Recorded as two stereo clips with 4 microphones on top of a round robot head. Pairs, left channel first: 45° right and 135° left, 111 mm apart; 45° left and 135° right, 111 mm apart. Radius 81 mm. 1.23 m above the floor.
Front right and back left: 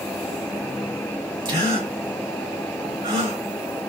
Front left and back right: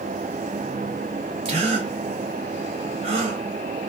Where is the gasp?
170° right, 2 m.